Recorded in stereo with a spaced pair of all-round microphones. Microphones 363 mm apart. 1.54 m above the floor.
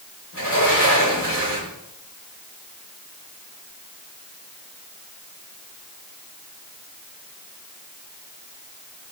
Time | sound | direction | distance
0.3 | a sliding door | 45° left (ahead or behind) | 4 m